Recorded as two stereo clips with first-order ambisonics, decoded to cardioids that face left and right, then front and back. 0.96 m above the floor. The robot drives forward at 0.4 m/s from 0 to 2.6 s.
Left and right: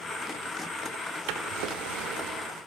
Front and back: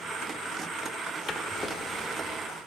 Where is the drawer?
70° right, 1.1 m; by 2.5 s 100° right, 1.1 m.